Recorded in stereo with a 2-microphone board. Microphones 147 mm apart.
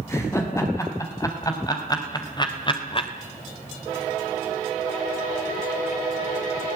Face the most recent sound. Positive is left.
turn(degrees=40)  # may be behind; listen again after turning